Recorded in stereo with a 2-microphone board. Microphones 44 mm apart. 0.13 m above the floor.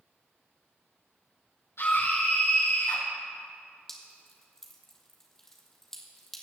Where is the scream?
75° left (ahead or behind), 5.5 m.